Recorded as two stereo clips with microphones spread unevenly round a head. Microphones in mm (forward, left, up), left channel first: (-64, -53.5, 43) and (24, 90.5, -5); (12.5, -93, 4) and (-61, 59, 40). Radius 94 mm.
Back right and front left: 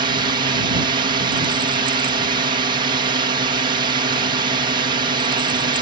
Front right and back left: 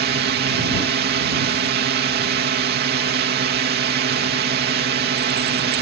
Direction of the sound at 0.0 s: 95° left.